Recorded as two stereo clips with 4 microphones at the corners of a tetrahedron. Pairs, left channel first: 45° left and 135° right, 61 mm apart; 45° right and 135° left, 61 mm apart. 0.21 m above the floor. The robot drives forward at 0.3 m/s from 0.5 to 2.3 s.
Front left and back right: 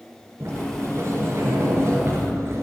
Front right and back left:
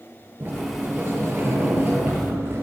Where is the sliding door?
175° right, 3.5 m.